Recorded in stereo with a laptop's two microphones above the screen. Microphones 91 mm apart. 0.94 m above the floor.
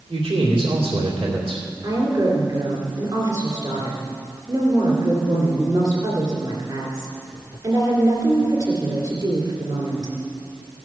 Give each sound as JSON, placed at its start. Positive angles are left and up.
{"t": 0.1, "sound": "a man speaking", "side_deg": -75, "distance_m": 2.5}
{"t": 1.8, "sound": "a woman speaking", "side_deg": -50, "distance_m": 2.5}